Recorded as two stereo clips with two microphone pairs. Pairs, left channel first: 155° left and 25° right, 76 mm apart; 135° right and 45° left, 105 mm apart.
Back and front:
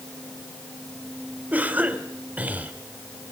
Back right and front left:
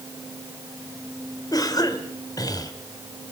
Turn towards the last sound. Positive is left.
turn(degrees=-90)